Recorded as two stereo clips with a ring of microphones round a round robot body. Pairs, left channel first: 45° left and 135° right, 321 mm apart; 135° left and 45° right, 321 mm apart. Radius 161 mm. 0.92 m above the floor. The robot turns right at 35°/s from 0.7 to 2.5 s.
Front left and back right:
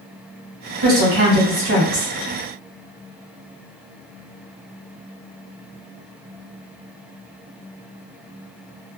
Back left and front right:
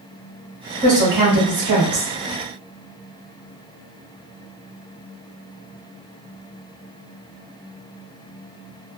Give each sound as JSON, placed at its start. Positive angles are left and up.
{"t": 0.8, "sound": "a woman speaking", "azimuth_deg": -115, "distance_m": 1.5}